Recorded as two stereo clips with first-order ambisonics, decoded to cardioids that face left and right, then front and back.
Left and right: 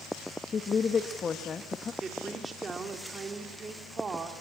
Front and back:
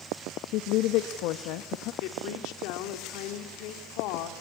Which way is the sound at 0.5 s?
20° left.